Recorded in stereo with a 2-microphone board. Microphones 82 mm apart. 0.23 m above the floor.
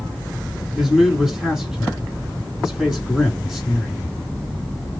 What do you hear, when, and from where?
0.8 s a man speaking: 5° right (ahead or behind), 2.0 m